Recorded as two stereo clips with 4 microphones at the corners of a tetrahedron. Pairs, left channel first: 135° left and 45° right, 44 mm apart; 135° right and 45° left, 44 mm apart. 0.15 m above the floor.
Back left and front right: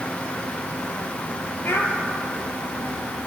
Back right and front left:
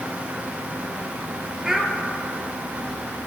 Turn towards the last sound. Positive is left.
turn(degrees=120)